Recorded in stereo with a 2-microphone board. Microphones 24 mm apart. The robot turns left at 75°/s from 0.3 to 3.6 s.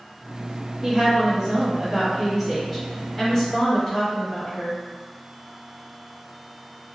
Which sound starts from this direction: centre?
A woman speaking, at 0.8 s.